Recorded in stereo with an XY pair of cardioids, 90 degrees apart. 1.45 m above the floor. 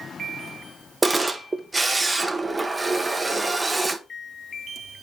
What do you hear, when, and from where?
1.0 s a camera shutter: 15° right, 0.9 m